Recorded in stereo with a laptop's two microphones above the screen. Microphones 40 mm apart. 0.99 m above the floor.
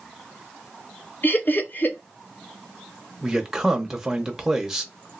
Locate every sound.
1.2 s laughter: 50° left (ahead or behind), 0.8 m
3.2 s a man speaking: 10° right (ahead or behind), 0.7 m